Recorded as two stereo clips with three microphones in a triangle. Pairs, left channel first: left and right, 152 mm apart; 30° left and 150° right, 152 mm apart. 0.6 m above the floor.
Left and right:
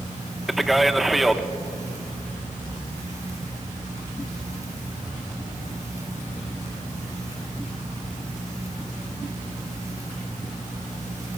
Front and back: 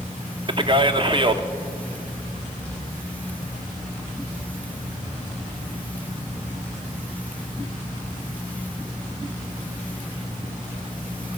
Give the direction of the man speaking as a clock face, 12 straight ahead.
6 o'clock.